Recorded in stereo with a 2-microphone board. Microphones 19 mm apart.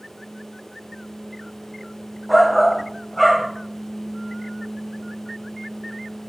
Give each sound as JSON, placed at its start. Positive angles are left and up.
{"t": 2.3, "sound": "a shout", "side_deg": 0, "distance_m": 1.2}